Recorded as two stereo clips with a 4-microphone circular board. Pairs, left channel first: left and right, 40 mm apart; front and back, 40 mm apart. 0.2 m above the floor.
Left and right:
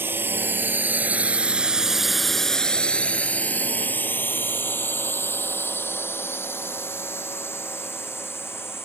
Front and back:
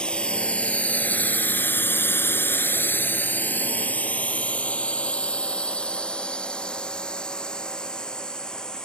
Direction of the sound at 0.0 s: 65° right.